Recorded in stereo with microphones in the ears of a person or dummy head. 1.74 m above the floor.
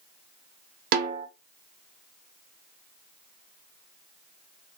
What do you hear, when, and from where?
0.9 s a snare drum: 60° right (ahead or behind), 0.5 m